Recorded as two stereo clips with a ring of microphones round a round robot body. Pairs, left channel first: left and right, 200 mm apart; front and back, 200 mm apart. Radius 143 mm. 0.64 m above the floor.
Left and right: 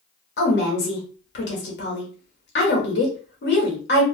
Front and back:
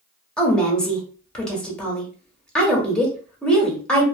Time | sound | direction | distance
0.4 | a woman speaking | 85° left | 1.6 m